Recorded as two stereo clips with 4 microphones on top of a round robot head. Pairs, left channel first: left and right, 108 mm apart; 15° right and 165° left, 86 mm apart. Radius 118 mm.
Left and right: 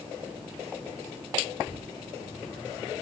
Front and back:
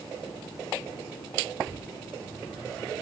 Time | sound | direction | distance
1.7 | tearing paper | 5° left | 6 m